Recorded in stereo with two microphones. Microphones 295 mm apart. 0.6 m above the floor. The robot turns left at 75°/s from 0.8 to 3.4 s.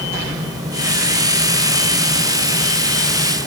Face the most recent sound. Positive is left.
No sound to turn to.